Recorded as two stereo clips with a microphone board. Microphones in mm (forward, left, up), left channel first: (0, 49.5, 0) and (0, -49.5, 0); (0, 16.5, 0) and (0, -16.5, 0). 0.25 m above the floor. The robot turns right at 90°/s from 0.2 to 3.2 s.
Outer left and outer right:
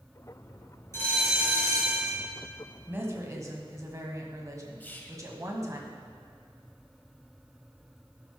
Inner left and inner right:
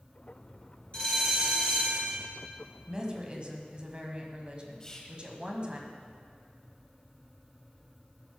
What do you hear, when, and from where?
0.9 s a bell: 150° left, 3 m; by 2.2 s 90° right, 3 m
2.9 s a woman speaking: 15° right (ahead or behind), 1.4 m; by 5.8 s 35° right (ahead or behind), 1.4 m
4.8 s whispering: 20° left (ahead or behind), 1.0 m